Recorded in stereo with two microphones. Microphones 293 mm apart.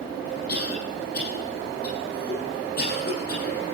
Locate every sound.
0.5 s a cough: 35° left (ahead or behind), 9.5 m